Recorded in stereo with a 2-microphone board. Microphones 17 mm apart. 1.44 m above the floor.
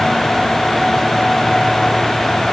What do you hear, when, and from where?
Only background noise.